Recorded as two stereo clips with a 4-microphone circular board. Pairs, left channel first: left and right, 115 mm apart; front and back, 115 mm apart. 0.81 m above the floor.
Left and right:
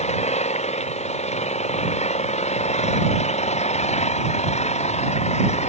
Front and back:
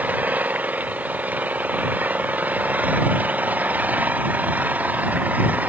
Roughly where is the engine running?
Left.